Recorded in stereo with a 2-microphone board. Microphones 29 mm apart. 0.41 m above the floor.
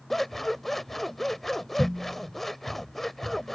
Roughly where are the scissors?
Centre.